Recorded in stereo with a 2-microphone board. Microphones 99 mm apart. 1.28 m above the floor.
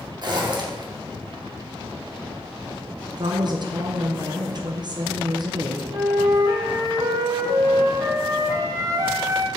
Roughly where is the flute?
Right.